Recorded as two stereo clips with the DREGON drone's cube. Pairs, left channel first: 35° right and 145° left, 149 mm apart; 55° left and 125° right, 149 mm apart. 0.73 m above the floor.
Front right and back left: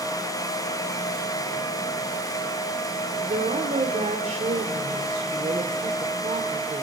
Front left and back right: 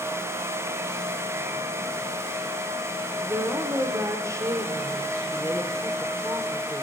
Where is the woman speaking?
170° left, 2 m.